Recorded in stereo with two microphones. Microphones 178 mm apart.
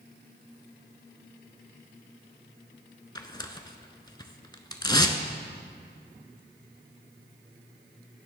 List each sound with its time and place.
3.1 s tearing paper: 25° left (ahead or behind), 0.6 m